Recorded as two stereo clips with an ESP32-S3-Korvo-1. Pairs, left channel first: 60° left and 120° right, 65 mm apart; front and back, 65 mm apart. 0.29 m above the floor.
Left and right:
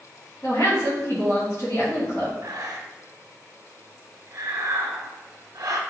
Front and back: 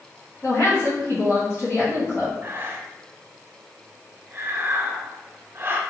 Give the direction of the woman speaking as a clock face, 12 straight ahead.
11 o'clock.